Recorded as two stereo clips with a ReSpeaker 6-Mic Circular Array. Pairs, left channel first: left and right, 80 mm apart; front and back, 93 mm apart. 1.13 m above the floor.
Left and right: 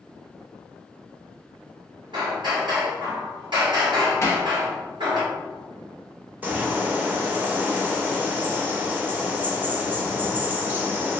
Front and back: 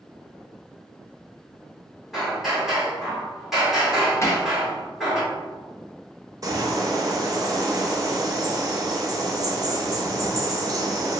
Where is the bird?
150° right, 0.6 m.